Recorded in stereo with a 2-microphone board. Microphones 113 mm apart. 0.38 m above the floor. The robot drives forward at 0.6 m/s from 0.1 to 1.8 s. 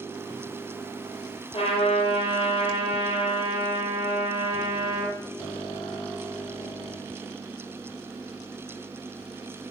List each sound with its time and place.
1.5 s a trumpet: 55° left (ahead or behind), 4.5 m